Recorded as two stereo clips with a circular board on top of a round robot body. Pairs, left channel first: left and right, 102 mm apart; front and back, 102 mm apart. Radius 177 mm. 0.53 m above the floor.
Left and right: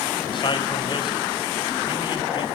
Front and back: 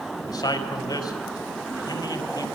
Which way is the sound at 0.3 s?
50° left.